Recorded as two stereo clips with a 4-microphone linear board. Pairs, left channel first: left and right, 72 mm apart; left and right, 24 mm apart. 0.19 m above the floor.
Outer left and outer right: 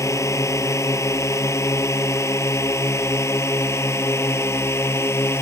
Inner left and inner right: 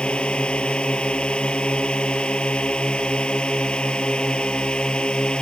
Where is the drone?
45° left (ahead or behind); by 5.4 s 40° left (ahead or behind).